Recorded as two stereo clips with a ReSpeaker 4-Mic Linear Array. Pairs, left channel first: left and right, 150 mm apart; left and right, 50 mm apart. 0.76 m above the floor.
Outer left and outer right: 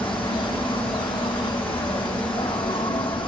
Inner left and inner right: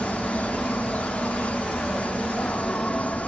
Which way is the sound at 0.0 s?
35° left (ahead or behind).